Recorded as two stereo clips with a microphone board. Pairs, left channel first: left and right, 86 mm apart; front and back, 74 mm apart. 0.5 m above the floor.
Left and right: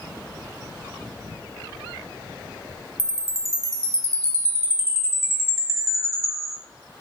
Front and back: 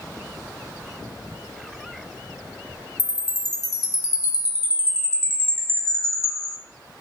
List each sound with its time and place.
3.0 s a chime: 40° right, 0.5 m